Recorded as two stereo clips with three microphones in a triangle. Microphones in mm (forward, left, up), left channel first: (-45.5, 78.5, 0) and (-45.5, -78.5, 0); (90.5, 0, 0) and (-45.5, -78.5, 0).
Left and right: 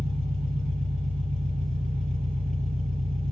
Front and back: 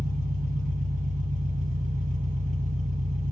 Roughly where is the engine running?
Behind right.